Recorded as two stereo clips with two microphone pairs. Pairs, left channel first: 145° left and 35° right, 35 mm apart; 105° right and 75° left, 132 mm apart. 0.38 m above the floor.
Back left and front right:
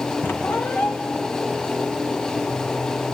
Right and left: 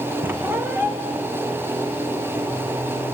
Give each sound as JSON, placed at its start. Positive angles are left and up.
{"t": 0.2, "sound": "a squeak", "azimuth_deg": 150, "distance_m": 2.5}